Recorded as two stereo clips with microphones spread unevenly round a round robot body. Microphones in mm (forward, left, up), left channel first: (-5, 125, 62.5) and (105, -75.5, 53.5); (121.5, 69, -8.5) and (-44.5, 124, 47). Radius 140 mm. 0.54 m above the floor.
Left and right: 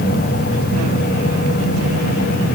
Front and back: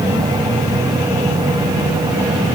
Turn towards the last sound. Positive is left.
No sound to turn to.